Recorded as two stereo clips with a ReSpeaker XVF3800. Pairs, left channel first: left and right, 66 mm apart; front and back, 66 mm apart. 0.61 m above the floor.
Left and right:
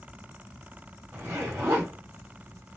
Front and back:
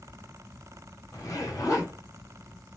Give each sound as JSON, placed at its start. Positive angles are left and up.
{"t": 1.1, "sound": "a zipper", "azimuth_deg": -35, "distance_m": 3.0}